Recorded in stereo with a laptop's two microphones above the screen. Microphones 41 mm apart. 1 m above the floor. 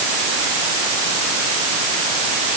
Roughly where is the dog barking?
No dog barking in this recording.